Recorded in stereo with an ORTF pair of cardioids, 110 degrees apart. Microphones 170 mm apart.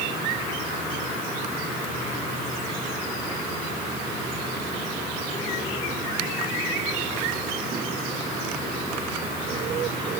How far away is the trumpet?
No trumpet in this recording.